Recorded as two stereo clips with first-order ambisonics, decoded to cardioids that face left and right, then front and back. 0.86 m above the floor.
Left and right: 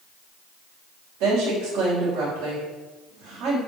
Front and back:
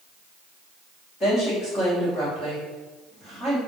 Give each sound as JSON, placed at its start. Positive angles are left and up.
{"t": 1.2, "sound": "a woman speaking", "azimuth_deg": -65, "distance_m": 3.0}